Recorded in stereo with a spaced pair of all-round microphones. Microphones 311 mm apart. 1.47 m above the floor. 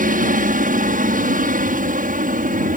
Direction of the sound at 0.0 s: 25° right (ahead or behind).